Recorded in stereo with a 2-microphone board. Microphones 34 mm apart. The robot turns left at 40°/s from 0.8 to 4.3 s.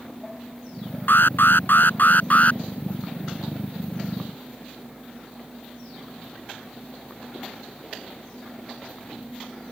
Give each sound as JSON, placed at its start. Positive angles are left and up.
{"t": 1.1, "sound": "an alarm", "azimuth_deg": 100}